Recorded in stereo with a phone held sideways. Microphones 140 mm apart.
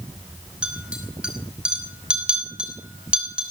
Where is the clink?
5° right (ahead or behind), 5 m.